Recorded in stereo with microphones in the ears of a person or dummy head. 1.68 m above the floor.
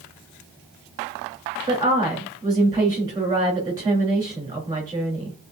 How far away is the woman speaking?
About 4 m.